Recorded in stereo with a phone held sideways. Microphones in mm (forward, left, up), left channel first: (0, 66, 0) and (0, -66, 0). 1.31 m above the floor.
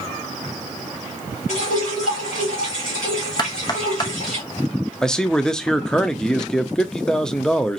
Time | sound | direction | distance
1.5 | dripping | 70° left (ahead or behind) | 3.5 m
3.4 | knocking | 30° left (ahead or behind) | 0.6 m
5.0 | a man speaking | 5° left (ahead or behind) | 0.5 m